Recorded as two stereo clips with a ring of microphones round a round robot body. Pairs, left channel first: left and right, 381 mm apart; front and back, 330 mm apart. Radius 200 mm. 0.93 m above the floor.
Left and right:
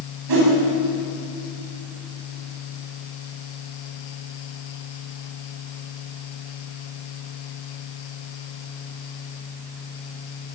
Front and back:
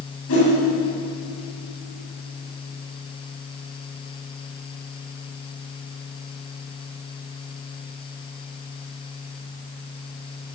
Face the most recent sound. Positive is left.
turn(degrees=-55)